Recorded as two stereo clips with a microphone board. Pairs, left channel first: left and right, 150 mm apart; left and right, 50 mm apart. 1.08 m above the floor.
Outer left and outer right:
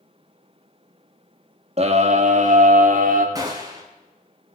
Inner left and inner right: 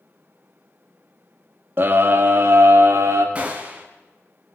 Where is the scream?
45° right (ahead or behind), 1.6 m; by 3.2 s 60° right (ahead or behind), 2.5 m.